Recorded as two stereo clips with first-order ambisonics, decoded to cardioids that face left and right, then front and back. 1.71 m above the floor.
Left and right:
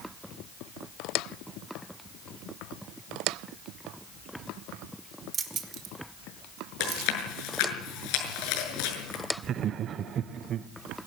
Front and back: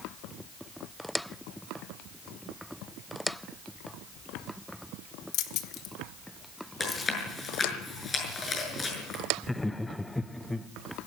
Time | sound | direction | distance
5.3 | keys jangling | 20° right | 1.7 m
6.8 | chewing | 70° left | 6.5 m
9.4 | laughter | 80° right | 0.6 m